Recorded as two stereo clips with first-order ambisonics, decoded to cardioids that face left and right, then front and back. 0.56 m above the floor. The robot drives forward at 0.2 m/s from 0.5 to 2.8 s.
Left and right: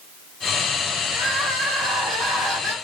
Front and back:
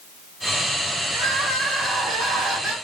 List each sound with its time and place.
1.1 s crying: 140° right, 1.2 m; by 2.7 s 150° right, 1.5 m